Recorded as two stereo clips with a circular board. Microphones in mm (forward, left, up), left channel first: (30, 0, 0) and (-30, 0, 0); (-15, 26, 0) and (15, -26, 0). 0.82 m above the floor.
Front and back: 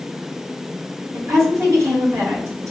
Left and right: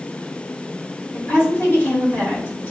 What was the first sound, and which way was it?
A woman speaking, 155° left.